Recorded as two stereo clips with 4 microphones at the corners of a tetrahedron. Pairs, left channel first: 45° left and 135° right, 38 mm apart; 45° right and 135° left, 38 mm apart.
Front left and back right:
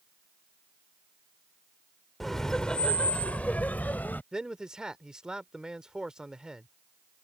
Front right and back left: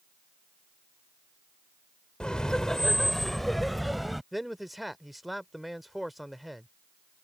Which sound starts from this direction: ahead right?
Laughter, at 2.2 s.